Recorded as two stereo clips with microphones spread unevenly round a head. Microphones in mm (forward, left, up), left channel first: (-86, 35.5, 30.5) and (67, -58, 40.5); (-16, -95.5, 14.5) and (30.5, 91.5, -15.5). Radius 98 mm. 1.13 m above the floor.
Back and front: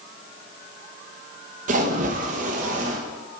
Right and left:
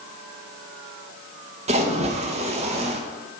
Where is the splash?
20° left, 0.8 m.